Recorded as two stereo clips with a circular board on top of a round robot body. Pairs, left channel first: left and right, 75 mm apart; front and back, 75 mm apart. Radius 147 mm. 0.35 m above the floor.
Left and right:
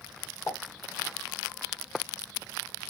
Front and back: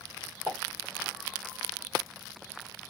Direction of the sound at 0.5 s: 125° left.